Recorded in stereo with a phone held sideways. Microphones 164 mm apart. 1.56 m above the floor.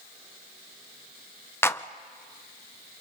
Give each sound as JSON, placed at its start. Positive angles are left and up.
{"t": 1.6, "sound": "a clap", "side_deg": 15, "distance_m": 0.5}